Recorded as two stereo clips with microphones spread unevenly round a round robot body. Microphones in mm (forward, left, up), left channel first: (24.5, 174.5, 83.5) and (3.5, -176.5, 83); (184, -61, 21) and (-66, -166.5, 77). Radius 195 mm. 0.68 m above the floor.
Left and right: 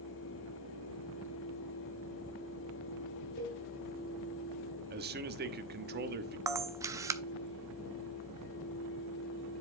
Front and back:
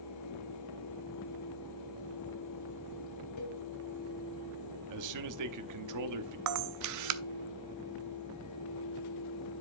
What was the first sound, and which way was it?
A cowbell, 20° left.